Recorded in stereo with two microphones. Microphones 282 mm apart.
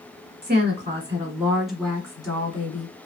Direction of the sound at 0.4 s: 30° right (ahead or behind).